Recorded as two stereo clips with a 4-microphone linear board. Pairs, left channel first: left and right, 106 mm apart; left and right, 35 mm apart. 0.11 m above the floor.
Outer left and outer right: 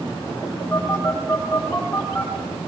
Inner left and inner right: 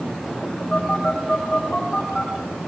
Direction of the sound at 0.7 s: 20° left (ahead or behind).